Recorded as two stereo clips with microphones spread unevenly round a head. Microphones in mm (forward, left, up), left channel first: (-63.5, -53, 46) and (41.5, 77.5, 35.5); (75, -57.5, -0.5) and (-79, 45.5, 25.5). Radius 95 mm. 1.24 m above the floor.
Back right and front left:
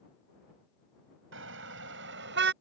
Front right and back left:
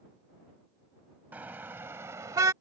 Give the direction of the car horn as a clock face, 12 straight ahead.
10 o'clock.